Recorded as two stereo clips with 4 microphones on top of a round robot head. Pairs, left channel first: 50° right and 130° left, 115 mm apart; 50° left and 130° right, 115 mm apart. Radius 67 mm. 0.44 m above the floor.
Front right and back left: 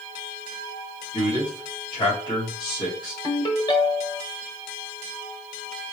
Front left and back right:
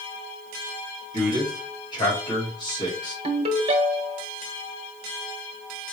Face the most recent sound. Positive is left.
turn(degrees=-100)